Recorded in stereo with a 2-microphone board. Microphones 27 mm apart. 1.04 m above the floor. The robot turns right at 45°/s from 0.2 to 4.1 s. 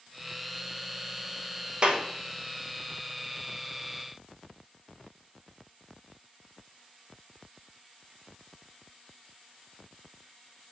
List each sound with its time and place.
1.8 s a clap: 40° right (ahead or behind), 0.7 m; by 2.0 s 45° right (ahead or behind), 0.7 m